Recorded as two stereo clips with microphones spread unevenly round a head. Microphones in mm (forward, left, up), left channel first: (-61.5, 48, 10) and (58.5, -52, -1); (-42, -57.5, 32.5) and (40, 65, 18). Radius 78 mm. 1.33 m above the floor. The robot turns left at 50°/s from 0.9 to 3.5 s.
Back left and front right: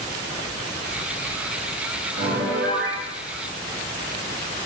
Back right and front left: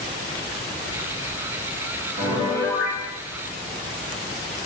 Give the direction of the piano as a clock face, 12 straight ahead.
12 o'clock.